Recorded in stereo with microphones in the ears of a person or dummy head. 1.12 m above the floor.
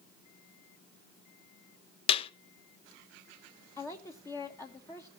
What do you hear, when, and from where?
2.1 s a clap: 35° left (ahead or behind), 1.0 m
3.8 s a woman speaking: 15° left (ahead or behind), 1.2 m